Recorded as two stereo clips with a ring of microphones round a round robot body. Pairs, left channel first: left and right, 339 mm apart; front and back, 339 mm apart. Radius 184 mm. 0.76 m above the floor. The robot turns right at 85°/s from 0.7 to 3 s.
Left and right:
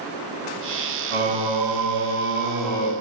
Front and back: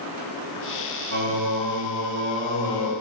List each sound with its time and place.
1.1 s singing: 130° right, 1.8 m; by 2.9 s 25° left, 1.8 m